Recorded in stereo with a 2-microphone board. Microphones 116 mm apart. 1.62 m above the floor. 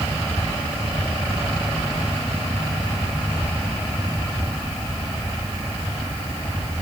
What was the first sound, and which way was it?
Only background noise.